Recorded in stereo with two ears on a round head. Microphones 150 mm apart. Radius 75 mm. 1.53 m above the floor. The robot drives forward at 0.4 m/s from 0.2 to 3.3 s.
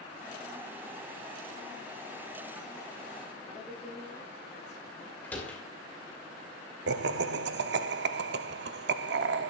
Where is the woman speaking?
15° left (ahead or behind), 6 m.